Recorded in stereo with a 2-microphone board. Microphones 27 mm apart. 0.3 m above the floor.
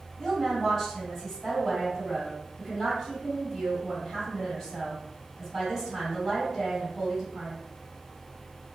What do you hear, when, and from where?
0.2 s a woman speaking: 10° left (ahead or behind), 1.7 m